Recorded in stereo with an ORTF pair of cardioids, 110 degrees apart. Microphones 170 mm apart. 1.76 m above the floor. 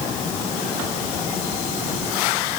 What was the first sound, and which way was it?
Only background noise.